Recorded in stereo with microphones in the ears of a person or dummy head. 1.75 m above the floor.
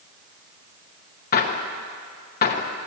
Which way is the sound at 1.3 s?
50° left (ahead or behind).